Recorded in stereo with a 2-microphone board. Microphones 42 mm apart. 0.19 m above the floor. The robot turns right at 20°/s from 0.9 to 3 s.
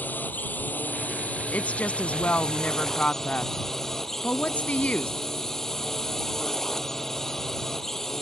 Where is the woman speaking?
40° left (ahead or behind); by 5.1 s 35° left (ahead or behind).